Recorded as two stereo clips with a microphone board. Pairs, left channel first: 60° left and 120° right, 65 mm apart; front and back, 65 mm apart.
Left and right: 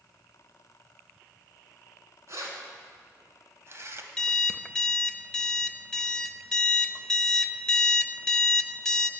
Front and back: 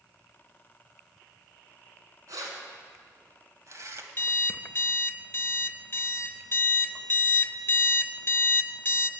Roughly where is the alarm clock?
Ahead.